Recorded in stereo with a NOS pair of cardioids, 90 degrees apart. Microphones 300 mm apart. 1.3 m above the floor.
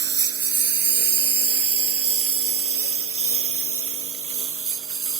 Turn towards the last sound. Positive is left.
turn(degrees=-45)